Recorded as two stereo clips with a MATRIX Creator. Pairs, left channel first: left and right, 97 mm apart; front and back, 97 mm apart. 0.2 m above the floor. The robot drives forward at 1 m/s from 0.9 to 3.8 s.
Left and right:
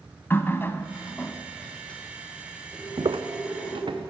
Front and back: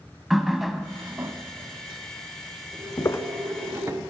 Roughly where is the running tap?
Left.